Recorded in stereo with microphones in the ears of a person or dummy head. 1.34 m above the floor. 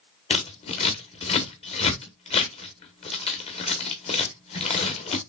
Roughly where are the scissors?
Left.